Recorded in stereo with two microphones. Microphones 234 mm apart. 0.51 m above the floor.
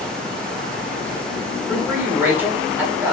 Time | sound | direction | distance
1.7 | a man speaking | 10° right (ahead or behind) | 1.2 m